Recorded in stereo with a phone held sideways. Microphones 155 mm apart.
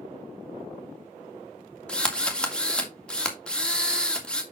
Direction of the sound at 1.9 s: 5° left (ahead or behind).